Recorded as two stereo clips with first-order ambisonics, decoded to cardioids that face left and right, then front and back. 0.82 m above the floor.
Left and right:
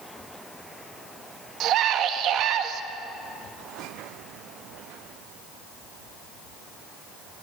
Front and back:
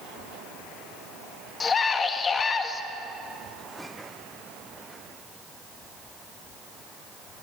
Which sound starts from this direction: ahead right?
A scream, at 1.6 s.